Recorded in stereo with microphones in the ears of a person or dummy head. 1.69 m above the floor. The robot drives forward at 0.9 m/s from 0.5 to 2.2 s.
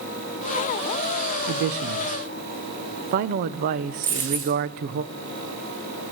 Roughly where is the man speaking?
Right.